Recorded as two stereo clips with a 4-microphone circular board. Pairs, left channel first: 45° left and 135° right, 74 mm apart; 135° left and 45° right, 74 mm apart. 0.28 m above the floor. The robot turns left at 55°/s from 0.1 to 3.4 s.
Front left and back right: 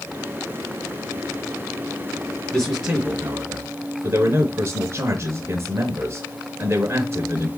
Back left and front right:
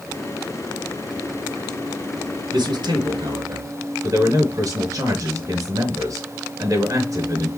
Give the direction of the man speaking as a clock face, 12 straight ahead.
1 o'clock.